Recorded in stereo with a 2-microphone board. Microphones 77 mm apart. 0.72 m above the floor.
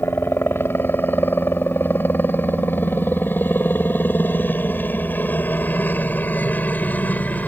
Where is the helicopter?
30° left (ahead or behind); by 7.5 s 20° left (ahead or behind).